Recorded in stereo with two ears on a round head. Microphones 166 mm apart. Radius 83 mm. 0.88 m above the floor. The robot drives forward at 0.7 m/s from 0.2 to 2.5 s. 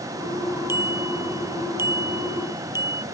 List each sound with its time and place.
0.7 s a bicycle bell: 15° right (ahead or behind)